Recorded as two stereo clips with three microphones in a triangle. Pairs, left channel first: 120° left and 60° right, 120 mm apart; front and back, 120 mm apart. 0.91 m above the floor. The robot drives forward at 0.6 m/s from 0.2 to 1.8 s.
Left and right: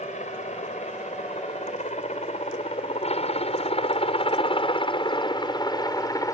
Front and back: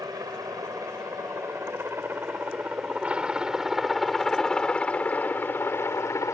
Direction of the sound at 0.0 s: 120° left.